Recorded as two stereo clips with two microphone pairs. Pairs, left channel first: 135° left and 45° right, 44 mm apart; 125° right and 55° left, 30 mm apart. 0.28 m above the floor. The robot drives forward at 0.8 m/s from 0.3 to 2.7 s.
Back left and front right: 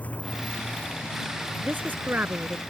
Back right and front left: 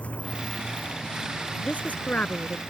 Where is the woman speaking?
85° right; by 2.6 s 95° right.